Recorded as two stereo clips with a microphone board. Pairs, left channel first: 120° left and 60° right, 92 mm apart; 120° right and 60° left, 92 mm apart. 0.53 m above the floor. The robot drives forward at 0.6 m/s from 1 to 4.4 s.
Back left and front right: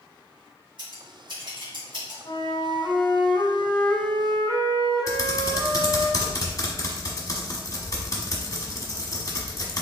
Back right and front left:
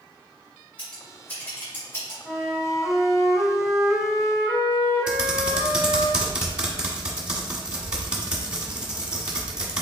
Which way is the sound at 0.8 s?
45° right.